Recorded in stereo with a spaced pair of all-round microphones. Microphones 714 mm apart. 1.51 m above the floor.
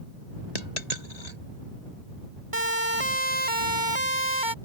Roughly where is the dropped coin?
Left.